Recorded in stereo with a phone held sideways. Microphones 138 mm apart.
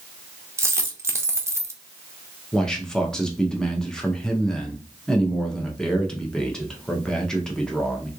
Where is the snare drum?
No snare drum in this recording.